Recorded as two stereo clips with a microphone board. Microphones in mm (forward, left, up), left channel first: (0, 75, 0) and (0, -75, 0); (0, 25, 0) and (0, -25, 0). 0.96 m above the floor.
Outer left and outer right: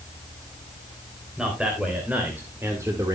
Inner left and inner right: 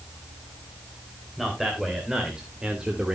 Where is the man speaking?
5° right (ahead or behind), 3.5 m; by 3.1 s 25° right (ahead or behind), 2 m.